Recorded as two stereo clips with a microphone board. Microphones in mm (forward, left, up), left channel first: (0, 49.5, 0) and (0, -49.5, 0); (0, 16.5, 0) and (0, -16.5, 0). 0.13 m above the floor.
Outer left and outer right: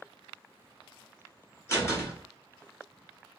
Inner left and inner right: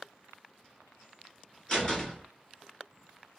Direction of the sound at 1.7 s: 25° left (ahead or behind).